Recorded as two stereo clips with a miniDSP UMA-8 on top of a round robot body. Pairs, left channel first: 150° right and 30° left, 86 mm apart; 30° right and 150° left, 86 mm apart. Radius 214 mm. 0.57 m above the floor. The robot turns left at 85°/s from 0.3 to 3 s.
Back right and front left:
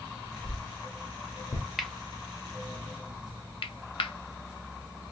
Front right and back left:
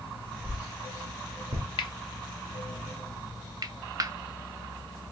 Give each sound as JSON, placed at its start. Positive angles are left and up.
{"t": 0.4, "sound": "a whoosh", "azimuth_deg": -120, "distance_m": 0.8}
{"t": 1.8, "sound": "cutlery clinking", "azimuth_deg": -60, "distance_m": 0.6}